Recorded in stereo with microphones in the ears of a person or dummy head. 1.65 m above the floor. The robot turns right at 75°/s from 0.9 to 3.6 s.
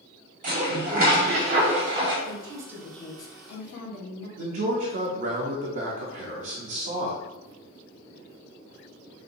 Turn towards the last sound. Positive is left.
turn(degrees=-40)  # may be behind; listen again after turning